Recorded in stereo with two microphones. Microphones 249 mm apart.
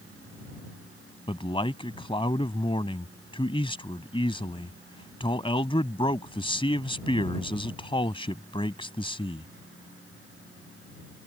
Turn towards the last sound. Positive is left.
turn(degrees=20)  # may be behind; listen again after turning